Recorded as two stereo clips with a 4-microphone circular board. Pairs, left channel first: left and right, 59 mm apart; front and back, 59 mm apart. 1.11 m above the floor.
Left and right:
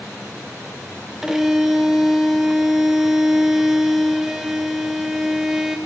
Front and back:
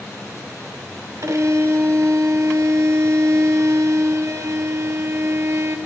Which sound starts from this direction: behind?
A violin, at 1.2 s.